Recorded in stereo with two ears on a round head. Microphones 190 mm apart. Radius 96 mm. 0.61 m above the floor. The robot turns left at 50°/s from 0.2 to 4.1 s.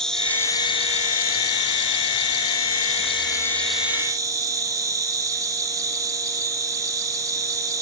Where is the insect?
175° left, 3.5 m; by 7.8 s 20° right, 3.5 m.